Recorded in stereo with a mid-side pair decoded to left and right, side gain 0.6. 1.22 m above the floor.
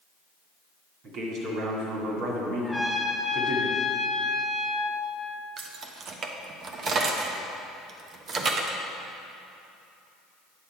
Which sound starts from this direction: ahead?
A trumpet, at 2.6 s.